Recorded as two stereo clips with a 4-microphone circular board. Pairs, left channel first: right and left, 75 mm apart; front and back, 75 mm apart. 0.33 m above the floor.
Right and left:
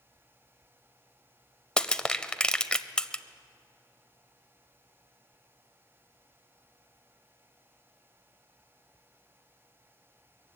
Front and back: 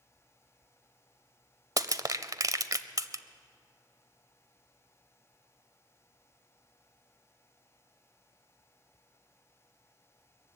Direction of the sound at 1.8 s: 165° right.